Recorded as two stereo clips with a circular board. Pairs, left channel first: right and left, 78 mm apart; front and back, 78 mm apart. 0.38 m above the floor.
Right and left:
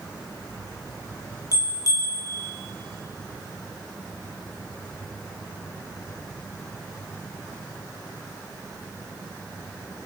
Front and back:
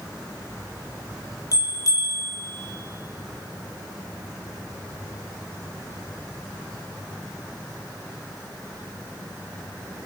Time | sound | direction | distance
1.5 | a bell | 45° right | 4.5 m